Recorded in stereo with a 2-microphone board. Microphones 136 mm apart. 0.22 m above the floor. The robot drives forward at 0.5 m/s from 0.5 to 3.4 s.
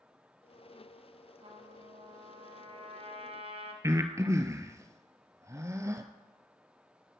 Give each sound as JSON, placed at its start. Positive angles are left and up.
{"t": 1.4, "sound": "a trumpet", "side_deg": -45, "distance_m": 2.0}
{"t": 3.8, "sound": "breathing", "side_deg": -20, "distance_m": 1.1}